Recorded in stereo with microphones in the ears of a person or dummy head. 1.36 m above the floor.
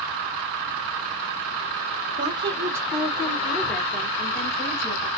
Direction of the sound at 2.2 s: 30° right (ahead or behind).